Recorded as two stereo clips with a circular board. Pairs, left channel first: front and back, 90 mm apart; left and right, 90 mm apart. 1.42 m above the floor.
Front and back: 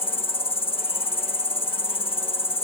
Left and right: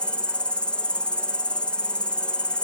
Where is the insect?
10° left.